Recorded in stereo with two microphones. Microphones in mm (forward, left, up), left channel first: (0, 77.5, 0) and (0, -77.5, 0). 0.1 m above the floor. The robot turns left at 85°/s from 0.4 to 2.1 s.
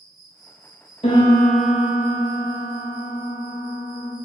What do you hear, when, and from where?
0.0 s an insect: 115° left, 0.9 m; by 4.2 s 25° right, 0.9 m
1.0 s a piano: 50° left, 0.8 m; by 4.2 s 40° right, 0.8 m